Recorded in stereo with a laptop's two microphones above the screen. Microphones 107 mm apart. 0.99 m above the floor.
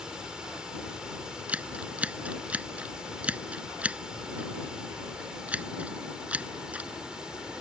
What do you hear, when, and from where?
0.0 s running water: 10° right (ahead or behind)
1.5 s scissors: 15° right (ahead or behind)